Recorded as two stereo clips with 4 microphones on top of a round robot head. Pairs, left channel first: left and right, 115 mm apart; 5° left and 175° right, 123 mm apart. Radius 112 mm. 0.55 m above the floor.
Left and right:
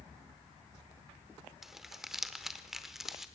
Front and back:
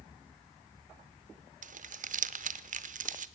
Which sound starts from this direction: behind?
Crumpling, at 1.6 s.